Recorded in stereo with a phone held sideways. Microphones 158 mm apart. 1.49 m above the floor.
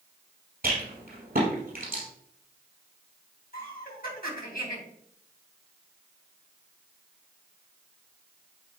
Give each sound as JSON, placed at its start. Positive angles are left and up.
{"t": 0.6, "sound": "a rattle", "side_deg": -70, "distance_m": 4.0}
{"t": 3.5, "sound": "laughter", "side_deg": 70, "distance_m": 2.5}